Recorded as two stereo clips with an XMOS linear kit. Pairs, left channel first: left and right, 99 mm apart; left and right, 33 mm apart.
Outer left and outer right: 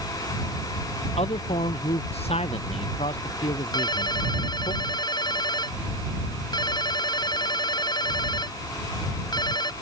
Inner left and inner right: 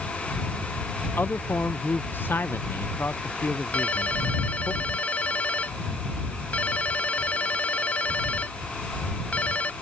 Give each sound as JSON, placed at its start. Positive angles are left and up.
{"t": 1.2, "sound": "a man speaking", "side_deg": 75}
{"t": 3.7, "sound": "a ringtone", "side_deg": 40}